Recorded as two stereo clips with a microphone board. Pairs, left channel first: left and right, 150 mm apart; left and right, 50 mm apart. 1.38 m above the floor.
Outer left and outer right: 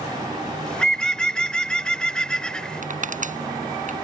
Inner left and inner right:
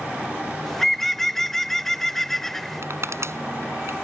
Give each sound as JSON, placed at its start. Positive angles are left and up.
{"t": 0.7, "sound": "a bird", "side_deg": 5}
{"t": 2.8, "sound": "crushing", "side_deg": -60}